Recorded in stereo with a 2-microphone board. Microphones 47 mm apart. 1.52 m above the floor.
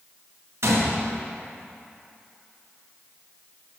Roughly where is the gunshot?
Right.